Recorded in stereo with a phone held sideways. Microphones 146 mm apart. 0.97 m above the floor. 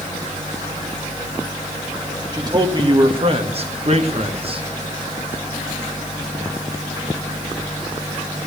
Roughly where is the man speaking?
Right.